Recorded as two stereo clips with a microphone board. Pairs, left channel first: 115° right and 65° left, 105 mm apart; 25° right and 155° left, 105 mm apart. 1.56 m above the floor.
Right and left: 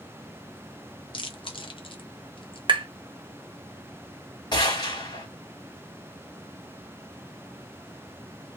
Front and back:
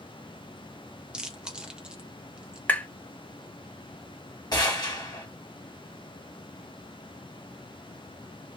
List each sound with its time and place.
1.1 s chewing: 120° right, 0.7 m
2.7 s tapping: 50° left, 0.5 m
4.5 s a gunshot: 70° right, 1.2 m